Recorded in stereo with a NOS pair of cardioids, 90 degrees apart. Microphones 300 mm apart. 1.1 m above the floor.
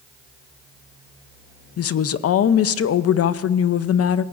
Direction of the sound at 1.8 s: 55° left.